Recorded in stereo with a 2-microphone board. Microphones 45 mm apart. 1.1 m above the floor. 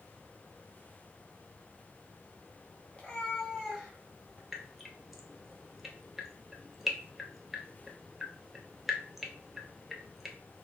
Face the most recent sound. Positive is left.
turn(degrees=-5)  # may be behind; listen again after turning